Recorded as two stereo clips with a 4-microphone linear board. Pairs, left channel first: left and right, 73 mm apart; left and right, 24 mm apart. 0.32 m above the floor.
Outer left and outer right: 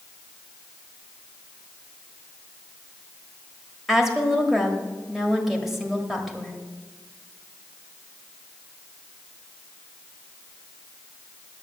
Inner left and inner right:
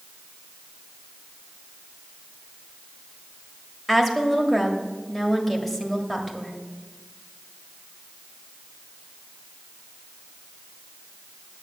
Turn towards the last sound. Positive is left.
turn(degrees=-5)  # may be behind; listen again after turning